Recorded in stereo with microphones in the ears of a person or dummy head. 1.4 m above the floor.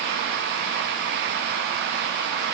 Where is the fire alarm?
No fire alarm in this recording.